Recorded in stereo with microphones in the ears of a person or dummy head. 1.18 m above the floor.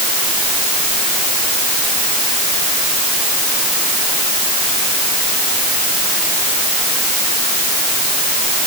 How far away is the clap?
No clap in this recording.